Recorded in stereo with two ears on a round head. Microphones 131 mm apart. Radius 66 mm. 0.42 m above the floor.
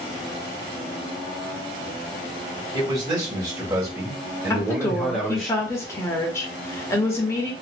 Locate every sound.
2.7 s a man speaking: 30° right (ahead or behind), 1.9 m; by 5.5 s 5° left (ahead or behind), 1.1 m
4.5 s a woman speaking: 20° left (ahead or behind), 0.8 m